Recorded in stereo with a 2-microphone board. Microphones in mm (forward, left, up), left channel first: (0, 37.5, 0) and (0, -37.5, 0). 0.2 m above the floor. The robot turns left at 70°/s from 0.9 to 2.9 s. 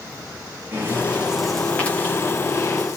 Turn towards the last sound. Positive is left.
turn(degrees=45)  # may be behind; listen again after turning